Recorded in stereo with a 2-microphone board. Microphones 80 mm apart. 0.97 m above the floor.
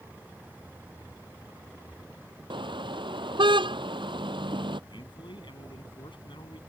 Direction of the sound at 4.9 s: 80° left.